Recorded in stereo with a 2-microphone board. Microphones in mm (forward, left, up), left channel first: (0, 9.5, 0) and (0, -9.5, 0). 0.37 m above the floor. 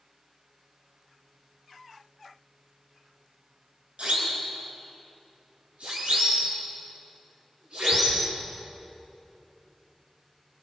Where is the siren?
75° right (ahead or behind), 7.5 m; by 8.2 s 80° right, 10.5 m.